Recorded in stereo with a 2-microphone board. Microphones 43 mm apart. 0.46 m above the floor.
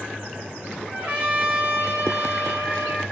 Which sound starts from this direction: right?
A trumpet, at 0.9 s.